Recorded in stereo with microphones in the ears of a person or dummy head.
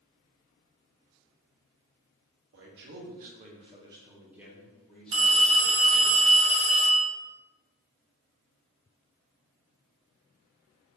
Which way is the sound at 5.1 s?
30° right (ahead or behind).